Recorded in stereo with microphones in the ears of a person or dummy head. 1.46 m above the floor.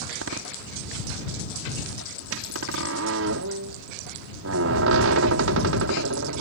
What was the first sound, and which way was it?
A door slam, 80° right.